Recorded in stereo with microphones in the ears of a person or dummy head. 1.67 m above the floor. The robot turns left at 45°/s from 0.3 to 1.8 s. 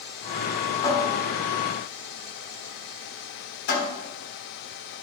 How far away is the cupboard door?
About 3.5 m.